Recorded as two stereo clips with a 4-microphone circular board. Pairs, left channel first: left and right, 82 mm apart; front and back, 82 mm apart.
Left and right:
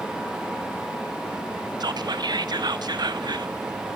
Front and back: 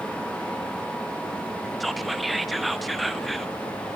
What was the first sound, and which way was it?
Whispering, 90° right.